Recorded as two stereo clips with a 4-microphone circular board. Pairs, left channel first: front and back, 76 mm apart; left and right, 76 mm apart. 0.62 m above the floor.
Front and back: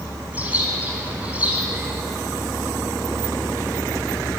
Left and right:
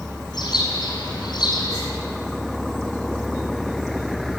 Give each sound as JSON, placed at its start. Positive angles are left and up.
{"t": 0.3, "sound": "a bird", "azimuth_deg": 110, "distance_m": 4.5}